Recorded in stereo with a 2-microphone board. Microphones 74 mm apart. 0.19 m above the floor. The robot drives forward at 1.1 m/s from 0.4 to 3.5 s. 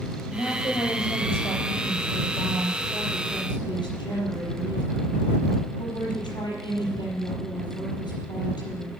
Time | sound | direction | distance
0.3 | a woman speaking | 60° left (ahead or behind) | 7 m